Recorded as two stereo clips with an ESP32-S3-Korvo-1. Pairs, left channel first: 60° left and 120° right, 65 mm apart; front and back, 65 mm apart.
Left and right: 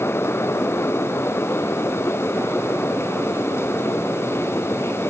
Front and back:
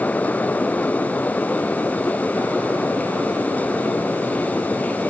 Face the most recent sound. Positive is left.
No sound to turn to.